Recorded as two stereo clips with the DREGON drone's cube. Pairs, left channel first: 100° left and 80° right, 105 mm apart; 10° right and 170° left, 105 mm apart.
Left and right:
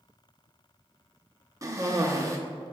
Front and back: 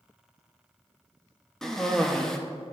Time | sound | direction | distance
1.6 | a cough | 95° right | 0.6 m